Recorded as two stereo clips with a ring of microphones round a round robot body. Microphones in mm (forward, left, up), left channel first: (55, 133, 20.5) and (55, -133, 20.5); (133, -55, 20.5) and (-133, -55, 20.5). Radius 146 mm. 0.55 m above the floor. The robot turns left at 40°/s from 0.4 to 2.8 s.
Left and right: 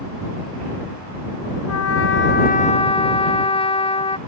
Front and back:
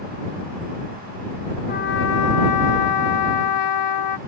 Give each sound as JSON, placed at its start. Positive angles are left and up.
{"t": 1.7, "sound": "a trumpet", "azimuth_deg": 65}